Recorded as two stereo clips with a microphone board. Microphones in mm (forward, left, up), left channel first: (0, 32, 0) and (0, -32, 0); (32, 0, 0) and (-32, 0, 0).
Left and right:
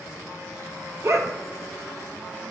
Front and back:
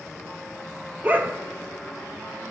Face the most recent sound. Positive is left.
turn(degrees=-125)